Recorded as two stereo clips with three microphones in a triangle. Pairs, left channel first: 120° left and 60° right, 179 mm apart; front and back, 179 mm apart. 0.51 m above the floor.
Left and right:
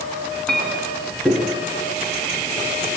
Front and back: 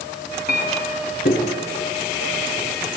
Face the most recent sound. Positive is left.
turn(degrees=35)